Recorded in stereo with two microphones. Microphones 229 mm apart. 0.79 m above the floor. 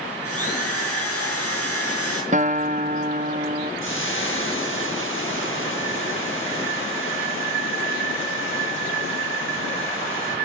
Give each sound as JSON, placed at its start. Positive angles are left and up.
{"t": 0.2, "sound": "a drill", "side_deg": 75, "distance_m": 5.5}
{"t": 2.3, "sound": "a guitar", "side_deg": -30, "distance_m": 0.9}
{"t": 3.8, "sound": "frying", "side_deg": 60, "distance_m": 4.5}